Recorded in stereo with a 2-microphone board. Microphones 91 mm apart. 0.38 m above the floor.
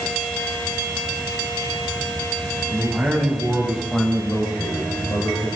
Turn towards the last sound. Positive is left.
turn(degrees=50)  # may be behind; listen again after turning